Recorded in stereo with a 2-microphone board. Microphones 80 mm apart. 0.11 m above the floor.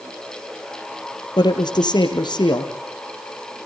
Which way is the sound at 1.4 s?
65° left (ahead or behind).